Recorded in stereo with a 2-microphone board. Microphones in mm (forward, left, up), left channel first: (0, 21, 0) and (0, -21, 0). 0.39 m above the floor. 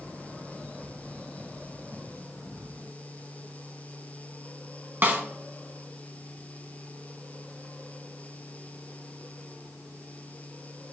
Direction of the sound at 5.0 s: 55° right (ahead or behind).